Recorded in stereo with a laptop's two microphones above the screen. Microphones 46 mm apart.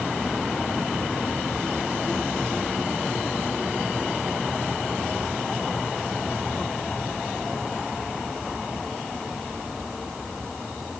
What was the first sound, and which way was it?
Only background noise.